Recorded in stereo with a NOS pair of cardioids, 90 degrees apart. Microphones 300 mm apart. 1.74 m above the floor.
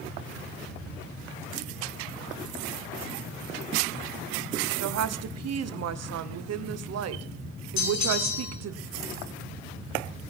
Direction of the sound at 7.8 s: 65° left.